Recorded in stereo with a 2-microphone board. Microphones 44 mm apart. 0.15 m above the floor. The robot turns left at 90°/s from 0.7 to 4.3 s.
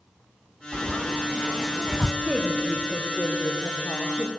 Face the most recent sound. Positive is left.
turn(degrees=15)